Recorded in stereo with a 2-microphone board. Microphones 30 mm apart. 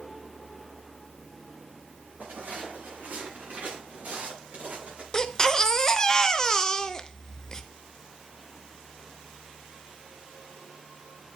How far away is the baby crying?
About 0.5 m.